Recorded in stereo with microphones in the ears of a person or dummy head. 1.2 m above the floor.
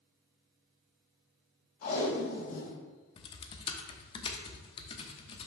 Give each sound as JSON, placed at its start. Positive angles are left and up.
{"t": 1.8, "sound": "tape being pulled", "side_deg": 50, "distance_m": 3.0}
{"t": 3.2, "sound": "typing on a keyboard", "side_deg": 30, "distance_m": 0.8}